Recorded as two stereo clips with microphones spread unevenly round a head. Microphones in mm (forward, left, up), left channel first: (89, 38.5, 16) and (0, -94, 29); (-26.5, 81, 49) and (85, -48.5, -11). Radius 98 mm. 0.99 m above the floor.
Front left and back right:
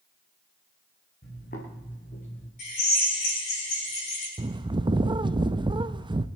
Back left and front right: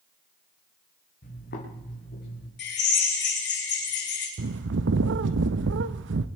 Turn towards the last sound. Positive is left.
turn(degrees=-60)